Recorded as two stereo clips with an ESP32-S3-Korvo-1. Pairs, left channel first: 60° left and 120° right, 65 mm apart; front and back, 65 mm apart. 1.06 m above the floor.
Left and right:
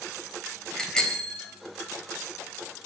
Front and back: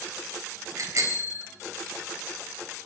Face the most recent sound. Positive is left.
turn(degrees=140)